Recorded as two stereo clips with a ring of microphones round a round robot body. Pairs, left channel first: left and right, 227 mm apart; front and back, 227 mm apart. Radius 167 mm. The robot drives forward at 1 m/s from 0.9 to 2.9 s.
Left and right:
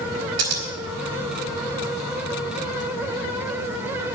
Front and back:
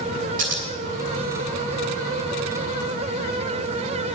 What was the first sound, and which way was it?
Scissors, 115° right.